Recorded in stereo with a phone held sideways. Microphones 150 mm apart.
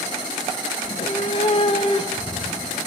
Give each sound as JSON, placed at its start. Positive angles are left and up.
{"t": 0.8, "sound": "a cat meowing", "side_deg": 40, "distance_m": 0.6}